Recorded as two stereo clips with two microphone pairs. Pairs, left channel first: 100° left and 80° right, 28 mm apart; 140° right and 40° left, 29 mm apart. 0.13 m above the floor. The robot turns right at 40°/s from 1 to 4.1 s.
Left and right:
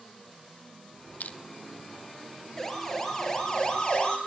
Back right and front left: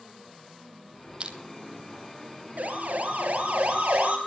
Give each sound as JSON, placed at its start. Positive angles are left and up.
{"t": 1.2, "sound": "crushing", "azimuth_deg": 90, "distance_m": 1.8}
{"t": 2.6, "sound": "a siren", "azimuth_deg": 25, "distance_m": 3.5}